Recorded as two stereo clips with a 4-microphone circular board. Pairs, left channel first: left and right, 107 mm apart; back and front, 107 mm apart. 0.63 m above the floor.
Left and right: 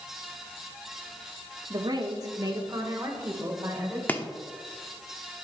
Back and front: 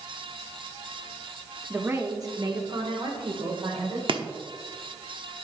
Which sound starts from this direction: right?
A woman speaking, at 1.7 s.